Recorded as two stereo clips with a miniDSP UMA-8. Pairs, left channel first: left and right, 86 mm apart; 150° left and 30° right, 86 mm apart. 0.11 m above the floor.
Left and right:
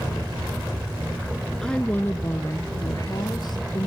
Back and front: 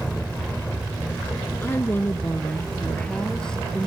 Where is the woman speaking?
165° left, 1.1 m; by 3.9 s 65° left, 2 m.